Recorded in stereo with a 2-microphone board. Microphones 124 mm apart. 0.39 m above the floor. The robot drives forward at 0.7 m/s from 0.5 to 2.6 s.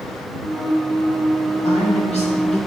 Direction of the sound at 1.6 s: 65° left (ahead or behind).